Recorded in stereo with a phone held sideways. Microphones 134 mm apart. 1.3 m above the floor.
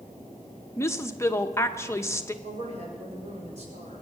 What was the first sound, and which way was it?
A woman speaking, 20° left (ahead or behind).